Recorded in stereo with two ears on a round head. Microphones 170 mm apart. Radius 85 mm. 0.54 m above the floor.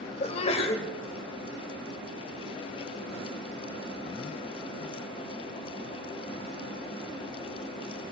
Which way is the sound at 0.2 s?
35° left (ahead or behind).